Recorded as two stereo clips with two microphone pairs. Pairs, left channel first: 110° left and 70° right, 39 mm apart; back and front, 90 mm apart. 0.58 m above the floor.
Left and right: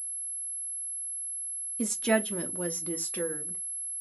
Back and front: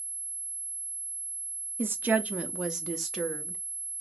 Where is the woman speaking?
30° left, 0.7 m; by 3.6 s 95° left, 1.3 m.